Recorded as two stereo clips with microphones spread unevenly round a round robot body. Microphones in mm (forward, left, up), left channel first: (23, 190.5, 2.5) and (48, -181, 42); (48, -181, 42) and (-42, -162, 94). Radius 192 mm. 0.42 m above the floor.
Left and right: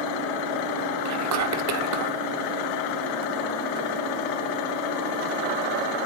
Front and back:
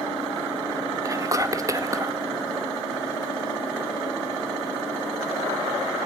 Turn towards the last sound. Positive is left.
turn(degrees=-100)